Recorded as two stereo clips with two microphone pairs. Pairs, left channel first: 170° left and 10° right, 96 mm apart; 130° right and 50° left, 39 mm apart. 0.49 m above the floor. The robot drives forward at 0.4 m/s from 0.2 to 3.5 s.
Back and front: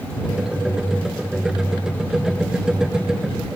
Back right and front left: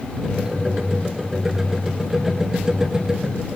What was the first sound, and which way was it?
Only background noise.